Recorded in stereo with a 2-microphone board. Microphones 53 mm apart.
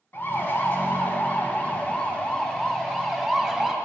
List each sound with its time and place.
0.1 s a siren: 40° left (ahead or behind), 2.5 m; by 3.8 s centre (ahead or behind), 2 m